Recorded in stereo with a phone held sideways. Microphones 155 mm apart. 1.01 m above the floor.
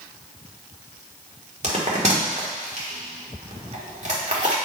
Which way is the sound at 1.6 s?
50° right (ahead or behind).